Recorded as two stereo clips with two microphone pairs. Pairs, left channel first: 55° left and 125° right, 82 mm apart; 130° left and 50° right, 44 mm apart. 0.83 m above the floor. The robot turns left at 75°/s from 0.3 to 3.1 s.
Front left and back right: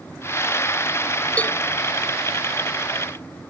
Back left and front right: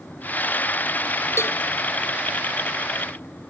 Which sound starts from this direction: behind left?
A cowbell, at 1.4 s.